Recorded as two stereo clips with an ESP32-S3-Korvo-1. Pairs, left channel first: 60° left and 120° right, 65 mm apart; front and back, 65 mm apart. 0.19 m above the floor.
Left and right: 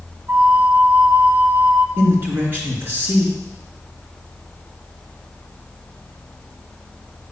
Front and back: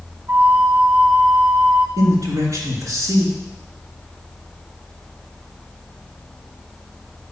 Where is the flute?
160° right, 1.3 m.